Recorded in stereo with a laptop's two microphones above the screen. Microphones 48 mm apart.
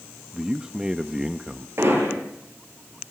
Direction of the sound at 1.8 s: 60° right (ahead or behind).